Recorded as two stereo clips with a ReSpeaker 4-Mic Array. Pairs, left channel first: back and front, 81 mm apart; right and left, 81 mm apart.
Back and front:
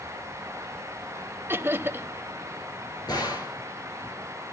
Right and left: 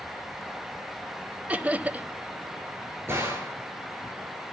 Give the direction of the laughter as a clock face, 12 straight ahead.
11 o'clock.